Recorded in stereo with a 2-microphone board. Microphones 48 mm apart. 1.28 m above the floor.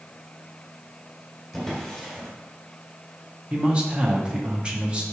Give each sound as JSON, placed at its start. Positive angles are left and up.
{"t": 1.5, "sound": "a drawer", "side_deg": 0, "distance_m": 2.0}
{"t": 3.5, "sound": "a man speaking", "side_deg": -25, "distance_m": 1.2}